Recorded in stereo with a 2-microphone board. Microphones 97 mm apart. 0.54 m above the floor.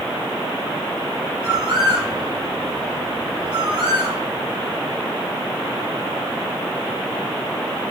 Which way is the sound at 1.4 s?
60° right (ahead or behind).